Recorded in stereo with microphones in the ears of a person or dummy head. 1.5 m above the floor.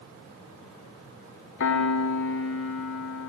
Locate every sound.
1.6 s a piano: 70° left (ahead or behind), 1.0 m